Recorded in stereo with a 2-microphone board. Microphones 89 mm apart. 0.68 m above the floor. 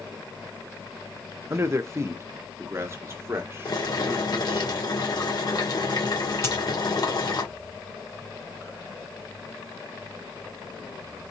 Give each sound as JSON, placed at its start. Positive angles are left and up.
{"t": 1.5, "sound": "a man speaking", "side_deg": -30, "distance_m": 0.5}
{"t": 3.6, "sound": "boiling", "side_deg": 55, "distance_m": 1.8}
{"t": 6.4, "sound": "a dropped coin", "side_deg": 30, "distance_m": 1.7}